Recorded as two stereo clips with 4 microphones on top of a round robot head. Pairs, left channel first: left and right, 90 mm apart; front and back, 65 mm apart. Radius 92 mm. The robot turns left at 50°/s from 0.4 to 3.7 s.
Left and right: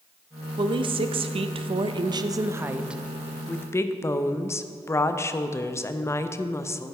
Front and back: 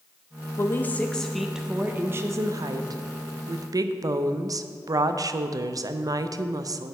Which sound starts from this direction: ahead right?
A woman speaking, at 0.6 s.